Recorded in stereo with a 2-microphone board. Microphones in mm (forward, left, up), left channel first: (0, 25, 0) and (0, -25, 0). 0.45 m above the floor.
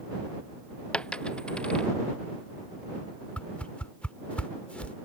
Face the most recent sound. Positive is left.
turn(degrees=25)  # may be behind; listen again after turning